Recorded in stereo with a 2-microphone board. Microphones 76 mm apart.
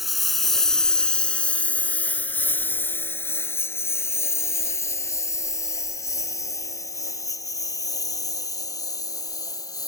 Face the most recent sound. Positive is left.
turn(degrees=50)  # may be behind; listen again after turning